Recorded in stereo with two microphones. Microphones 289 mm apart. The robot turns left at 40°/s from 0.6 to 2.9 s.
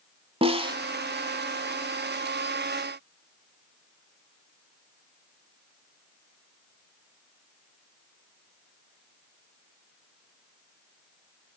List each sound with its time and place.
0.4 s a snare drum: 20° right (ahead or behind), 0.7 m; by 0.8 s 15° right (ahead or behind), 0.7 m